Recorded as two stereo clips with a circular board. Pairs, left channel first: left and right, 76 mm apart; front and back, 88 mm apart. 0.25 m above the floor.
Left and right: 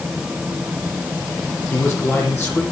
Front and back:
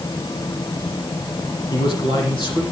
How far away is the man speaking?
About 8.5 m.